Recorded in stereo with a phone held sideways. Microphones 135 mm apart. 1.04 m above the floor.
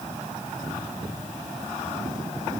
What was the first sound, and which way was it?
Only background noise.